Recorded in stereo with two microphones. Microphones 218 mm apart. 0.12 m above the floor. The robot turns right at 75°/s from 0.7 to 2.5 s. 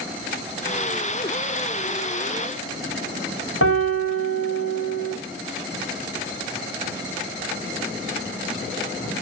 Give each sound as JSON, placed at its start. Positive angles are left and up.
{"t": 3.6, "sound": "a piano", "side_deg": 85, "distance_m": 3.5}